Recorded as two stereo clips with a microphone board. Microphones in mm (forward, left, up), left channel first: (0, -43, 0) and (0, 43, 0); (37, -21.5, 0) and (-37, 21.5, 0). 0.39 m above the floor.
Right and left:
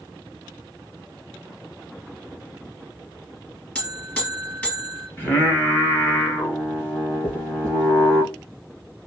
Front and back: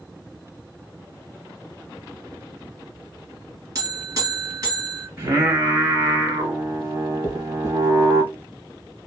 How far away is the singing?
About 1.2 m.